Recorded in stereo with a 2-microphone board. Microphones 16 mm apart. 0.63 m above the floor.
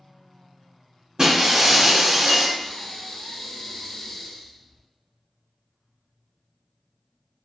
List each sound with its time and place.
1.2 s breaking glass: 55° right (ahead or behind), 0.9 m
2.6 s breathing: 70° left (ahead or behind), 0.8 m